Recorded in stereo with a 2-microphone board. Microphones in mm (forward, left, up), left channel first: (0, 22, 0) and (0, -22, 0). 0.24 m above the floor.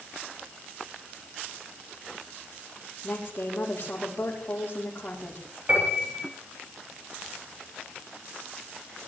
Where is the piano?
35° right (ahead or behind), 8.5 m.